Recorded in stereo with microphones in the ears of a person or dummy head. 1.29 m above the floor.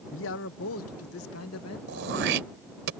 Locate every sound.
0.1 s a man speaking: 60° left (ahead or behind); by 1.8 s 80° left
1.9 s throat clearing: 65° right (ahead or behind)